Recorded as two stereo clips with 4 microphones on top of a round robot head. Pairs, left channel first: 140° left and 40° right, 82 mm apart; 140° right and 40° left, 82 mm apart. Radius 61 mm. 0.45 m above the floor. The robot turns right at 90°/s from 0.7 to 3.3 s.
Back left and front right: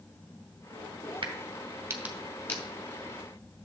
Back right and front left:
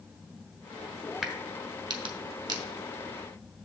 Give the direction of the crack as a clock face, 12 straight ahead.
1 o'clock.